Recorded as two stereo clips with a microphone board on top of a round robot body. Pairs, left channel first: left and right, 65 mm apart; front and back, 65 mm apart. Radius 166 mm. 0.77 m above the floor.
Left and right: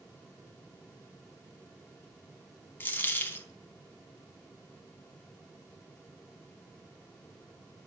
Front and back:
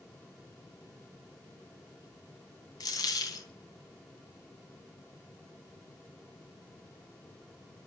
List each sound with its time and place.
2.8 s a dropped coin: 30° left, 3.5 m